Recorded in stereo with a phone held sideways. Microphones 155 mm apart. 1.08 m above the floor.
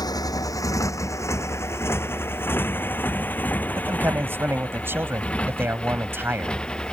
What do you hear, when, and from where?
0.0 s a motorcycle: 25° left (ahead or behind); by 6.9 s 5° left (ahead or behind)
3.8 s a man speaking: 15° right (ahead or behind)